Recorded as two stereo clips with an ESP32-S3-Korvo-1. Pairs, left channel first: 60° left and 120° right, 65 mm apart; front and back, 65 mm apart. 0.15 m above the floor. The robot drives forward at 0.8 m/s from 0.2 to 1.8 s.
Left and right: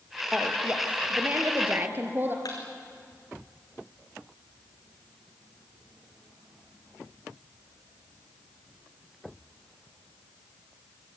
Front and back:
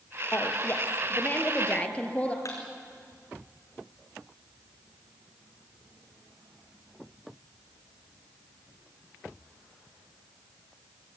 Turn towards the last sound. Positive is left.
turn(degrees=40)